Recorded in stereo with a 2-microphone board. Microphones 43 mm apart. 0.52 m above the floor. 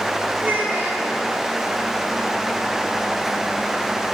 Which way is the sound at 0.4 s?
50° right (ahead or behind).